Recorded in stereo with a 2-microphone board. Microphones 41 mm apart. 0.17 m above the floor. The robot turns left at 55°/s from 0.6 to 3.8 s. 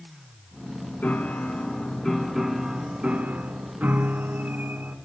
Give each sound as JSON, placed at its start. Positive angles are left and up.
{"t": 1.0, "sound": "a piano", "azimuth_deg": 75, "distance_m": 0.6}